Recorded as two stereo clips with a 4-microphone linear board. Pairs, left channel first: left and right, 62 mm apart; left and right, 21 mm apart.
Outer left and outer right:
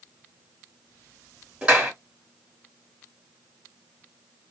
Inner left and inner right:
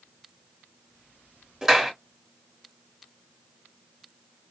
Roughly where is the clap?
Centre.